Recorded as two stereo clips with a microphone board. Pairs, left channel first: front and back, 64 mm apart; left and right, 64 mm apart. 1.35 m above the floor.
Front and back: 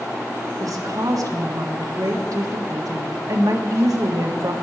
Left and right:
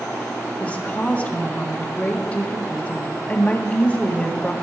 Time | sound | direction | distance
0.6 | a woman speaking | 160° left | 1.5 m